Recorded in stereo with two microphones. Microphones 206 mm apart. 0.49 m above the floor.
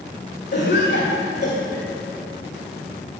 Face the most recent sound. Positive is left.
turn(degrees=55)  # may be behind; listen again after turning